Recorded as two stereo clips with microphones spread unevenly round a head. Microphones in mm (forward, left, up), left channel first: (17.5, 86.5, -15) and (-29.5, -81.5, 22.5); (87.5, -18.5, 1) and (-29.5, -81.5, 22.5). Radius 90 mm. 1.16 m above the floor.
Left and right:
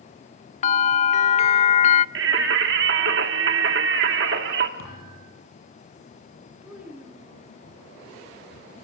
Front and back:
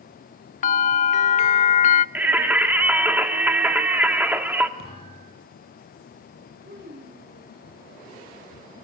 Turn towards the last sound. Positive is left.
turn(degrees=170)